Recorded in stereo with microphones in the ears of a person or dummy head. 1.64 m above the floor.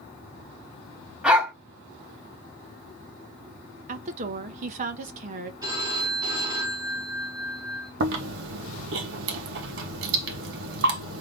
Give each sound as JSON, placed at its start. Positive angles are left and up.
{"t": 1.2, "sound": "a dog barking", "side_deg": 0, "distance_m": 2.5}
{"t": 3.9, "sound": "a woman speaking", "side_deg": -45, "distance_m": 0.9}
{"t": 5.6, "sound": "a phone ringing", "side_deg": -20, "distance_m": 3.0}
{"t": 8.0, "sound": "chewing", "side_deg": -70, "distance_m": 1.2}